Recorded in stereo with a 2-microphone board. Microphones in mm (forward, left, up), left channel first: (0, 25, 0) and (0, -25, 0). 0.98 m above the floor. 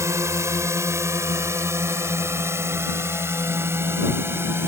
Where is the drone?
70° right (ahead or behind); by 4.7 s 50° right (ahead or behind).